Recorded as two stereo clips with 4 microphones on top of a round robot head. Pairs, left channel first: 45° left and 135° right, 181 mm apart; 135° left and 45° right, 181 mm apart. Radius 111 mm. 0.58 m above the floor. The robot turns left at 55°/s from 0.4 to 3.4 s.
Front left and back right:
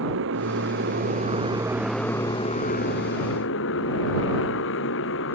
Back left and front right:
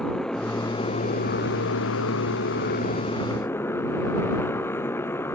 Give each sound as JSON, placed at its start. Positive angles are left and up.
{"t": 0.0, "sound": "a motorcycle", "azimuth_deg": -140}